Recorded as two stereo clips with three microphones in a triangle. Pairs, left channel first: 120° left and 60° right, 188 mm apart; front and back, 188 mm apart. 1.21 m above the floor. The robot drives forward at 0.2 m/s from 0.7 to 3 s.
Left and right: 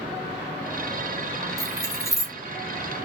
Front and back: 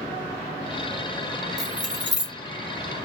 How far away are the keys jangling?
About 1.6 m.